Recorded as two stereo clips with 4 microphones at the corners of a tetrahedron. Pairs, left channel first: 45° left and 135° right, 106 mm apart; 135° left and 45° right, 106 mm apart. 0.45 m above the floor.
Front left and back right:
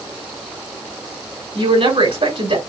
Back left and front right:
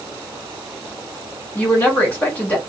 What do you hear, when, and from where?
1.6 s a woman speaking: 150° right, 3 m